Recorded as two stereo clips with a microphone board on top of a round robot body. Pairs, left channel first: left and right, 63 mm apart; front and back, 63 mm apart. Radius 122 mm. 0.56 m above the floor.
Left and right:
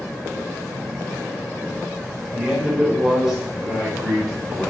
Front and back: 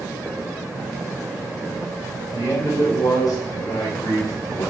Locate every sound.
2.3 s a man speaking: 10° right, 2.5 m